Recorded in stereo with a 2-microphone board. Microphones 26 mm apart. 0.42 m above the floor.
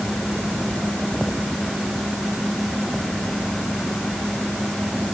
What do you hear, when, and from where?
Only background noise.